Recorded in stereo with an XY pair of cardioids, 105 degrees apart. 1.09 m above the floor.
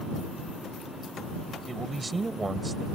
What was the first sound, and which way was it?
A man speaking, 25° right.